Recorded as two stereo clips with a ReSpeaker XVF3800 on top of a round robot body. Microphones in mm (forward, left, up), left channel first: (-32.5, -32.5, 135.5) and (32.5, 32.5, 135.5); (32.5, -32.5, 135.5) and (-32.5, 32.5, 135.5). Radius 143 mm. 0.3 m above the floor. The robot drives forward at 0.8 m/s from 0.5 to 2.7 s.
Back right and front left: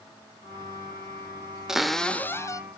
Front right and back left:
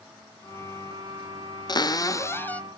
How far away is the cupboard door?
About 1.0 m.